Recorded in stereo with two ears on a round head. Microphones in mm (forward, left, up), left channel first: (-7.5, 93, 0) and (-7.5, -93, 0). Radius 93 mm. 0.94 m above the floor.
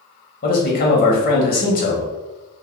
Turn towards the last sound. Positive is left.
turn(degrees=45)  # may be behind; listen again after turning